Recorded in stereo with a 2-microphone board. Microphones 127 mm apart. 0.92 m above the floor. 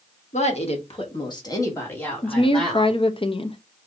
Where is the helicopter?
I don't hear a helicopter.